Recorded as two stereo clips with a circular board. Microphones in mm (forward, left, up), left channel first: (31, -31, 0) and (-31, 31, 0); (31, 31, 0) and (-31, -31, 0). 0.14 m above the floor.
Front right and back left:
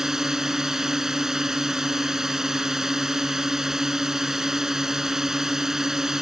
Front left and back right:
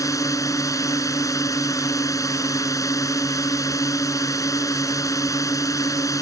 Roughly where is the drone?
Ahead left.